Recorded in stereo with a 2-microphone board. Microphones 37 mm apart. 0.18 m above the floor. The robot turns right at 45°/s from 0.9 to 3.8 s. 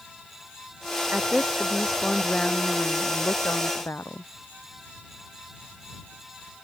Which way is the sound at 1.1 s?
40° right.